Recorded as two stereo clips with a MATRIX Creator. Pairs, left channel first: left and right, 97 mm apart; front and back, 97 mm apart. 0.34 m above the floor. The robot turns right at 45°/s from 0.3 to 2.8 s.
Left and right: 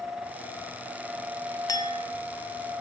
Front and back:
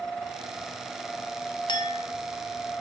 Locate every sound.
1.7 s a clink: 40° left, 1.8 m; by 2.0 s 55° left, 1.8 m